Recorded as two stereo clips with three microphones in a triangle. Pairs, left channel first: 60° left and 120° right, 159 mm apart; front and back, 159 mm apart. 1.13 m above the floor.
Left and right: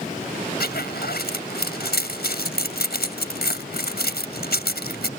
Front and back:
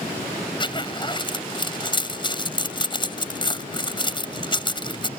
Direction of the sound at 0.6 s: 60° left.